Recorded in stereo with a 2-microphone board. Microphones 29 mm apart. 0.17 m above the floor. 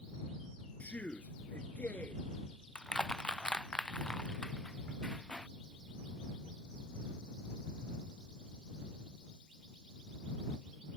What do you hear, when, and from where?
0.8 s a man speaking: 60° left (ahead or behind)
2.8 s crushing: 30° left (ahead or behind)